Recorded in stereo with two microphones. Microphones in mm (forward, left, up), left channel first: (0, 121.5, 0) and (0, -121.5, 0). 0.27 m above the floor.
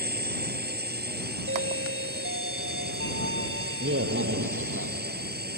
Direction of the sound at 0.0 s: 40° right (ahead or behind).